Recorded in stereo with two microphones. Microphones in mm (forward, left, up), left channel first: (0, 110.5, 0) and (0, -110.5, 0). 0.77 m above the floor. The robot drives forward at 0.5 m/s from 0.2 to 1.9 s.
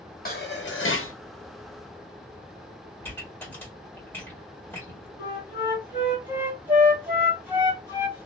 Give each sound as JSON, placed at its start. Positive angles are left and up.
{"t": 0.2, "sound": "dishes clattering", "side_deg": 45, "distance_m": 0.8}
{"t": 3.0, "sound": "a pop", "side_deg": 10, "distance_m": 1.6}
{"t": 5.2, "sound": "a flute", "side_deg": -20, "distance_m": 1.8}